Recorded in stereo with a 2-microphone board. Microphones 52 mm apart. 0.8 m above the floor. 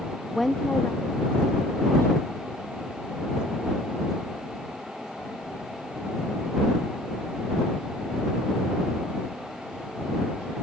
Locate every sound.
0.3 s a woman speaking: 10° right (ahead or behind); by 7.1 s 70° left (ahead or behind)